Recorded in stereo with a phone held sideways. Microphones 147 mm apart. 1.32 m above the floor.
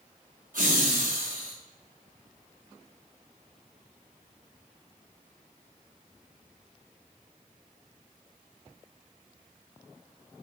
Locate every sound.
0.5 s laughter: 65° right (ahead or behind), 0.7 m